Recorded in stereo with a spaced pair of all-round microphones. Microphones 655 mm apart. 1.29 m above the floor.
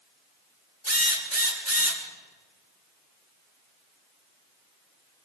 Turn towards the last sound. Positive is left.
turn(degrees=-20)  # may be behind; listen again after turning